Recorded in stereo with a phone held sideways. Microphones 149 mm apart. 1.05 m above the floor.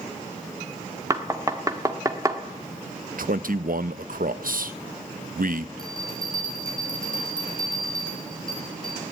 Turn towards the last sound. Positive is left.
turn(degrees=-25)  # may be behind; listen again after turning